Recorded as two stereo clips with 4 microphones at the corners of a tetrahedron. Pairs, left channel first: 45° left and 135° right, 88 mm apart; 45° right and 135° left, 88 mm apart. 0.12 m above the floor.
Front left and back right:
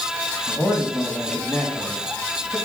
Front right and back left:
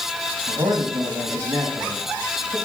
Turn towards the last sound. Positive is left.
turn(degrees=120)